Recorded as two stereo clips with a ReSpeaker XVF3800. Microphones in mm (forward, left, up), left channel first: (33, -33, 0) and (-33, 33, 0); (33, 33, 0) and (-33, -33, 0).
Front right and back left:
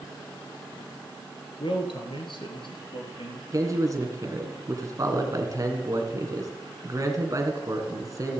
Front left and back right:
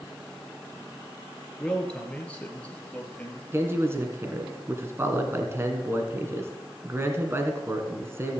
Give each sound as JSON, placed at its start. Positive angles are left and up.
{"t": 1.6, "sound": "a man speaking", "azimuth_deg": -35, "distance_m": 2.0}
{"t": 3.5, "sound": "a man speaking", "azimuth_deg": 170, "distance_m": 1.9}